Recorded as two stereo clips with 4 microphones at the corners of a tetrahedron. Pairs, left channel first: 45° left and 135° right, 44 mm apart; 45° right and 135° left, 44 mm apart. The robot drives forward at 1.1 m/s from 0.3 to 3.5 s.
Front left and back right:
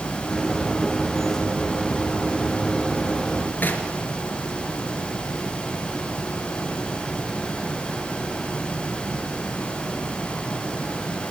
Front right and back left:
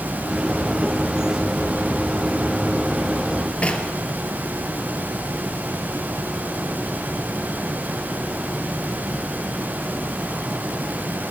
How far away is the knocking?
About 2.5 m.